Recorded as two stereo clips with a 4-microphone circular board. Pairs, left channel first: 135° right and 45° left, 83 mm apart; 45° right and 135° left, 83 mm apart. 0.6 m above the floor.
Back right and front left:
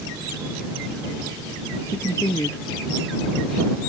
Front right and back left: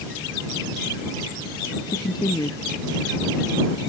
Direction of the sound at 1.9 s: 80° right.